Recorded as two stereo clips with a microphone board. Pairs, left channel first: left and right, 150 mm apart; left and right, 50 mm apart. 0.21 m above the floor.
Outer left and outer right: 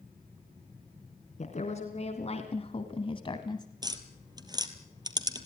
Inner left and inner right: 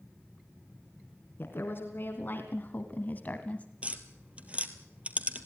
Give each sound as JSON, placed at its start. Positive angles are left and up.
{"t": 1.4, "sound": "a woman speaking", "side_deg": 50, "distance_m": 2.5}
{"t": 3.8, "sound": "tapping", "side_deg": -30, "distance_m": 1.6}